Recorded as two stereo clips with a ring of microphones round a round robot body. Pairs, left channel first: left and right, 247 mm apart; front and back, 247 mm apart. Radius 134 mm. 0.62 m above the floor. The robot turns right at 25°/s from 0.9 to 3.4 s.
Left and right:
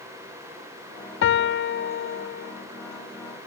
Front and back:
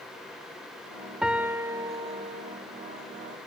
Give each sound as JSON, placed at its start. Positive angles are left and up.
{"t": 1.2, "sound": "a piano", "azimuth_deg": 95, "distance_m": 0.5}